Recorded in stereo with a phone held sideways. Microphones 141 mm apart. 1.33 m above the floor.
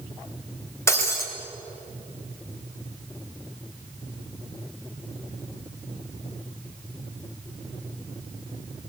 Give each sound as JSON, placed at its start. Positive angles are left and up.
{"t": 0.9, "sound": "breaking glass", "side_deg": 20, "distance_m": 3.0}